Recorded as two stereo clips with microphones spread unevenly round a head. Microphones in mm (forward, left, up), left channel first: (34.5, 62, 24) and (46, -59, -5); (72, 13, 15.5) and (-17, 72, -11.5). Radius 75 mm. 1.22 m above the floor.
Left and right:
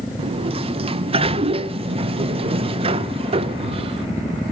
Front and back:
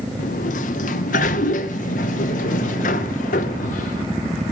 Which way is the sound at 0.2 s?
45° right.